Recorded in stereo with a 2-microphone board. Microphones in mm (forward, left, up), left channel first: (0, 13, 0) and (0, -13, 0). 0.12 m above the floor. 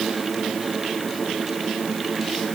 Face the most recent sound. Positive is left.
No sound to turn to.